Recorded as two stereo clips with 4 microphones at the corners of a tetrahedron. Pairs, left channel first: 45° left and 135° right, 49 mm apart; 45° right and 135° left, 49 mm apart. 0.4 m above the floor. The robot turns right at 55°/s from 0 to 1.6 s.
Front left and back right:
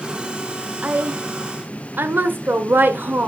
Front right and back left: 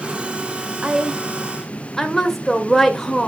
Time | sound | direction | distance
0.8 | a woman speaking | 165° right | 1.3 m